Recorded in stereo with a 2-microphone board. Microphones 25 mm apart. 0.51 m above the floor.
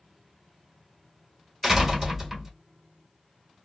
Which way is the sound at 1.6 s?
20° right (ahead or behind).